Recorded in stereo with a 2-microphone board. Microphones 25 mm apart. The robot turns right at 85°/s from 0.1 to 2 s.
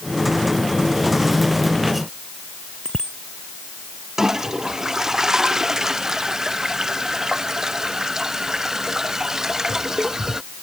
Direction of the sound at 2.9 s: 35° left (ahead or behind).